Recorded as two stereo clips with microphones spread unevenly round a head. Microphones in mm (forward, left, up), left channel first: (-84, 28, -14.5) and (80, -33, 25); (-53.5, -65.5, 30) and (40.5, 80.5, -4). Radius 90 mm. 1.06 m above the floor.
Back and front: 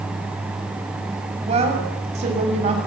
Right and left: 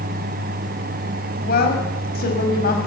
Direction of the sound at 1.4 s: 80° right.